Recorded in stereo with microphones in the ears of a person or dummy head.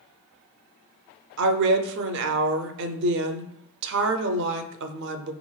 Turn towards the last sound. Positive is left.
turn(degrees=-60)  # may be behind; listen again after turning